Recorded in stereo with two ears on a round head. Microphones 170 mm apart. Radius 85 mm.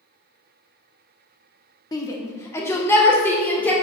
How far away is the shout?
About 1.1 m.